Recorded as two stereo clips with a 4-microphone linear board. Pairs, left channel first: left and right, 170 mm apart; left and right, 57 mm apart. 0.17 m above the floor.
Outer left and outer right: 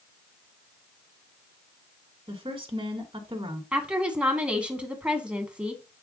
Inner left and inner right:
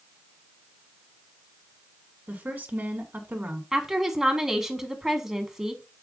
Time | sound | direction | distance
2.3 | a woman speaking | 30° right (ahead or behind) | 1.7 m
3.7 | a woman speaking | 5° right (ahead or behind) | 1.4 m